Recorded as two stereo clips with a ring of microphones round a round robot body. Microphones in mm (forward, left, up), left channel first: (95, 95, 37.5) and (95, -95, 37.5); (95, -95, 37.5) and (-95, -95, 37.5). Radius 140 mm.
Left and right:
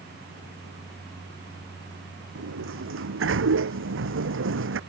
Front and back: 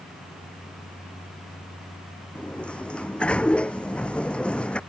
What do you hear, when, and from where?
2.4 s a sliding door: 85° right